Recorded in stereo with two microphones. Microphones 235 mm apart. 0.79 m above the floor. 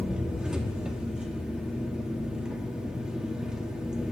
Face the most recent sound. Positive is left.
turn(degrees=-5)  # may be behind; listen again after turning